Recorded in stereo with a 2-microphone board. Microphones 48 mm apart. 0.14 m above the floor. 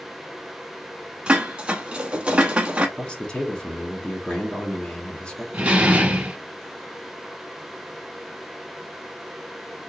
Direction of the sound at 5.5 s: 25° right (ahead or behind).